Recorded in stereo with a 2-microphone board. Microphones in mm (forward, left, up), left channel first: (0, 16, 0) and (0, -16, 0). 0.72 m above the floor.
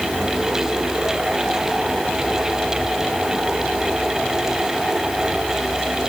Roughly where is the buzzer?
I don't hear a buzzer.